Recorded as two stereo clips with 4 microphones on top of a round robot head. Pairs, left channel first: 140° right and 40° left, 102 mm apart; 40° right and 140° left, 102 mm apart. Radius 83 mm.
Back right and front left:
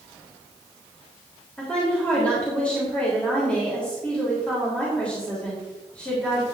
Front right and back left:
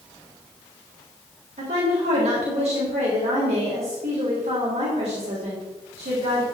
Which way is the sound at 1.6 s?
140° left.